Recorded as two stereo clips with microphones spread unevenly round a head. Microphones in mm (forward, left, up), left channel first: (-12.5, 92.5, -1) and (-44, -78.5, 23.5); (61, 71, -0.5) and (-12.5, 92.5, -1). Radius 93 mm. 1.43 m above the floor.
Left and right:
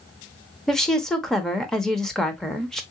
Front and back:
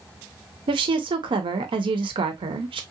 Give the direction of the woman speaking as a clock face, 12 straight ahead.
6 o'clock.